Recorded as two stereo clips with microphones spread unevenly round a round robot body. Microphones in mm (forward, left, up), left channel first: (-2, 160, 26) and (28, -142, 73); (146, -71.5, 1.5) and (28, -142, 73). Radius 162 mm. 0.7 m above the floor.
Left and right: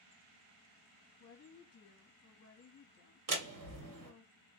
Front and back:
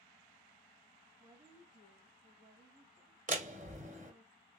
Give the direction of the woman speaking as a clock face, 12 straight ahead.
8 o'clock.